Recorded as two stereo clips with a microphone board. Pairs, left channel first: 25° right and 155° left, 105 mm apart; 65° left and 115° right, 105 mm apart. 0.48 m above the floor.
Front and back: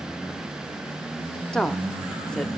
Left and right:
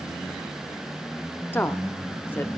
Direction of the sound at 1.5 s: 45° left.